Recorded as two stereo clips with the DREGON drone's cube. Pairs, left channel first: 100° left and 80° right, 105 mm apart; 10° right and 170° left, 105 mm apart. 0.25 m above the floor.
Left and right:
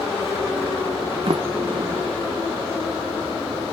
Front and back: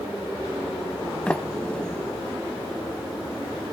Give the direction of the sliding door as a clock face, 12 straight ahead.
3 o'clock.